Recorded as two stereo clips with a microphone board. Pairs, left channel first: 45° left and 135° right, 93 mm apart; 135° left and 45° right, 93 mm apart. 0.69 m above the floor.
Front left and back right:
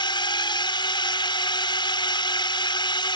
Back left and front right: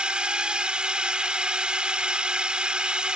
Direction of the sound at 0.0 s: 30° left.